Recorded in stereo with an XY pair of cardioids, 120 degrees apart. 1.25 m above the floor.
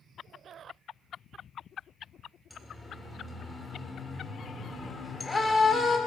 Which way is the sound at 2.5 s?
Straight ahead.